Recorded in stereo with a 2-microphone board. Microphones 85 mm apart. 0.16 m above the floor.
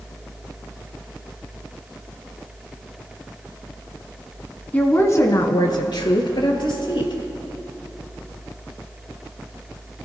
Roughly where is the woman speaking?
Centre.